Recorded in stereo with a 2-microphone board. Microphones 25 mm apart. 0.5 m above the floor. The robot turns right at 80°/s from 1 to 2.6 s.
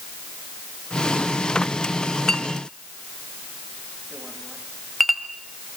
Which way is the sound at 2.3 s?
25° left (ahead or behind).